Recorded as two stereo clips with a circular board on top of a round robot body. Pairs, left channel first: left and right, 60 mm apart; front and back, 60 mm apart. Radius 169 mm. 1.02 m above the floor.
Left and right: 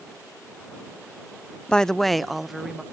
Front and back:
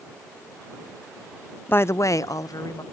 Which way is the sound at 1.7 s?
25° left.